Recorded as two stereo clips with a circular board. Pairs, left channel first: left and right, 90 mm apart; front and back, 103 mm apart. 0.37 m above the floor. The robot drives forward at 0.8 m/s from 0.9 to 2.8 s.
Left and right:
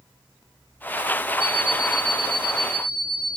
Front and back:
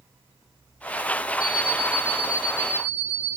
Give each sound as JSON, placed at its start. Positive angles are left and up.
{"t": 1.4, "sound": "an alarm clock", "azimuth_deg": 50, "distance_m": 5.0}